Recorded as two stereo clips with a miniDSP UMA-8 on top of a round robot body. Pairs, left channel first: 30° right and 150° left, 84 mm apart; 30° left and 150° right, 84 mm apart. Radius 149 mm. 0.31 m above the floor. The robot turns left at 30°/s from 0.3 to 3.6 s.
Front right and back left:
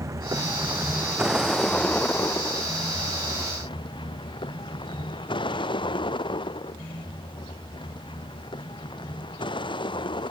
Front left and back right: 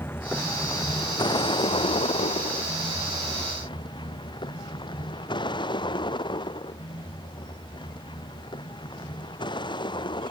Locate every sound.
0.0 s a vehicle: 95° left; by 10.3 s 5° right